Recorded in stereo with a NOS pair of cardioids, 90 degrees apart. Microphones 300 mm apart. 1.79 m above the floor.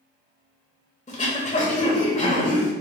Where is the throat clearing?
25° left, 1.2 m.